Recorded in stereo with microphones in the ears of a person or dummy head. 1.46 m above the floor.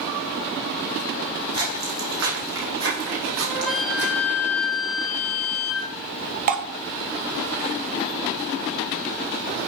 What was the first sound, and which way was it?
Footsteps, 70° right (ahead or behind).